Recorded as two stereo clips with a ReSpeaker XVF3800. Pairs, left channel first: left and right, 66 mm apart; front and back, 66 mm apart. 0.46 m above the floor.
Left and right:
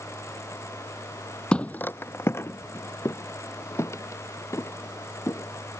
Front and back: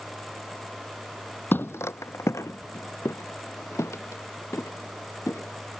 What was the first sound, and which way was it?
Footsteps, 25° left.